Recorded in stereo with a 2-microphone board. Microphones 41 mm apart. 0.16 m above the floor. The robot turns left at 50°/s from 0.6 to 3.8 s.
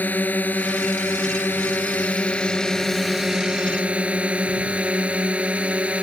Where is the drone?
125° left; by 6.0 s 35° right.